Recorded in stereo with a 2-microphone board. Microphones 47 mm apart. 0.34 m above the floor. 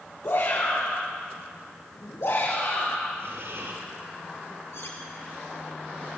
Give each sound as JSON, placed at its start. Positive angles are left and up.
{"t": 0.2, "sound": "a shout", "side_deg": 80, "distance_m": 6.0}
{"t": 3.2, "sound": "breathing", "side_deg": -70, "distance_m": 6.5}
{"t": 4.7, "sound": "cutlery clinking", "side_deg": 65, "distance_m": 4.0}